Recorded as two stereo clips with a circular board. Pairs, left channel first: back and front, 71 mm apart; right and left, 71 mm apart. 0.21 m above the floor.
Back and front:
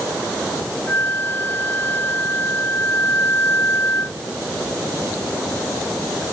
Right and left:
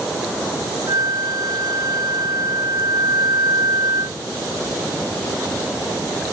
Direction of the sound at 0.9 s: 120° left.